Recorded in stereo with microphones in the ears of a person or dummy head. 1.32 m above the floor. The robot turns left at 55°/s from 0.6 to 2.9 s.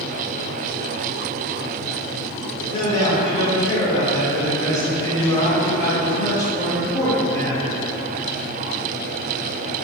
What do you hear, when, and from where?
2.7 s a man speaking: 30° left (ahead or behind), 0.8 m; by 7.8 s 20° left (ahead or behind), 0.8 m